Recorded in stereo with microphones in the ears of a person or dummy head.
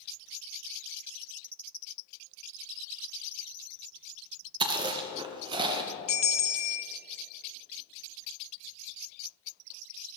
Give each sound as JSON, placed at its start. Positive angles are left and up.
{"t": 4.6, "sound": "chewing", "side_deg": -25, "distance_m": 1.0}
{"t": 6.1, "sound": "a bell", "side_deg": 40, "distance_m": 0.6}